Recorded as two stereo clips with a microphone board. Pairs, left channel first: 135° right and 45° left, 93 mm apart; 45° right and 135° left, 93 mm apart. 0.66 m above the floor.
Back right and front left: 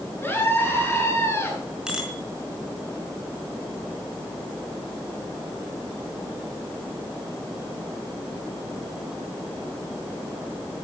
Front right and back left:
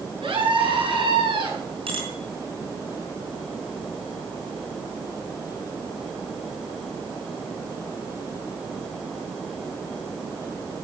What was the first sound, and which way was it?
A scream, 160° left.